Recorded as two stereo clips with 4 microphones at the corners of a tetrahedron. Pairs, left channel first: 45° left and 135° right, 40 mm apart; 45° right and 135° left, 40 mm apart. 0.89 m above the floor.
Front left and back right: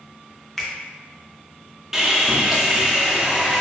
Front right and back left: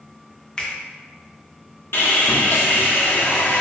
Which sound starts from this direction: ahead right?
Sawing, at 1.9 s.